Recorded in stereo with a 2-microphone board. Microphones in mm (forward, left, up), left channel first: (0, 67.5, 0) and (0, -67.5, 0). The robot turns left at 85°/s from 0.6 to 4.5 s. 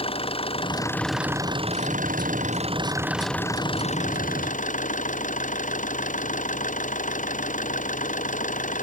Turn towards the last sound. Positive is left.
turn(degrees=75)